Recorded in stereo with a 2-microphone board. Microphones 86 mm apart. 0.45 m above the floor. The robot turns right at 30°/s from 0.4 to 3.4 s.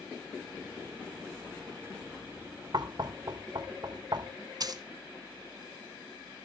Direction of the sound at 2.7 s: 55° right (ahead or behind).